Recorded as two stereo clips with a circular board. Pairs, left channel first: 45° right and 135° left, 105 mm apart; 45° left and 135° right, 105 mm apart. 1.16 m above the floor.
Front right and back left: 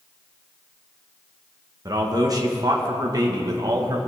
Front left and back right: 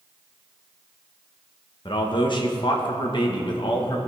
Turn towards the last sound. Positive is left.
turn(degrees=85)